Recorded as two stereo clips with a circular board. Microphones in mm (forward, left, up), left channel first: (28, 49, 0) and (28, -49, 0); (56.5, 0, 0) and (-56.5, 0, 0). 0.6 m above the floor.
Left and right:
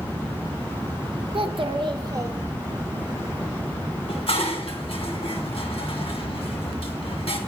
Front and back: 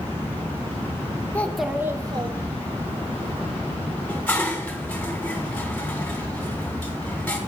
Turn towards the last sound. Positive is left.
turn(degrees=80)